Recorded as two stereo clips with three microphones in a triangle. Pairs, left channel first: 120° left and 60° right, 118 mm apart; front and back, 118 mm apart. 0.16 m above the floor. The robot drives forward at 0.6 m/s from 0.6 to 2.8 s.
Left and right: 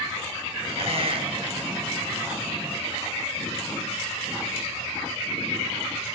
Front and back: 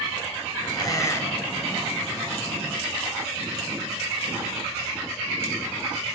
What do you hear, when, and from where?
0.8 s a squeak: 50° right, 1.1 m; by 1.8 s 90° right, 0.9 m